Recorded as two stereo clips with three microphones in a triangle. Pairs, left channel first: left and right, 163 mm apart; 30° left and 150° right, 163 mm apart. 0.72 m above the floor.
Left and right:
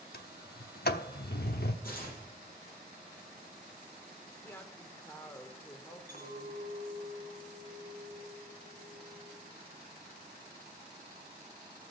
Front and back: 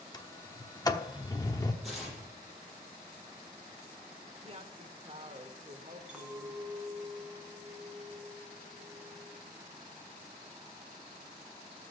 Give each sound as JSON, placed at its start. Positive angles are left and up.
{"t": 0.1, "sound": "a sliding door", "azimuth_deg": 95, "distance_m": 0.8}
{"t": 1.8, "sound": "tearing paper", "azimuth_deg": 120, "distance_m": 7.0}
{"t": 4.4, "sound": "a woman speaking", "azimuth_deg": 170, "distance_m": 1.7}
{"t": 6.1, "sound": "a clink", "azimuth_deg": 120, "distance_m": 4.5}